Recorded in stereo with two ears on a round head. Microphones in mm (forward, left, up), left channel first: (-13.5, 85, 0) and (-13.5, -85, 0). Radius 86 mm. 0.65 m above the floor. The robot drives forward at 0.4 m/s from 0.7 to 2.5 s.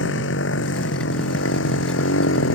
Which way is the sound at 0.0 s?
70° left (ahead or behind).